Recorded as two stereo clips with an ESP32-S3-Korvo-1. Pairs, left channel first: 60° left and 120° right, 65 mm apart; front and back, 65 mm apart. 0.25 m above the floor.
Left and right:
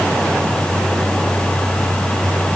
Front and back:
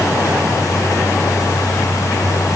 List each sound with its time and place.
Only background noise.